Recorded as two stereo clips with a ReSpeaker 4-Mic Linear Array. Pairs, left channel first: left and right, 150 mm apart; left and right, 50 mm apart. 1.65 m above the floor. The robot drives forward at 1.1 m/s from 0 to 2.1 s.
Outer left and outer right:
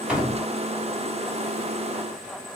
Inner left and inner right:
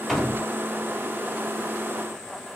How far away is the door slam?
About 3 m.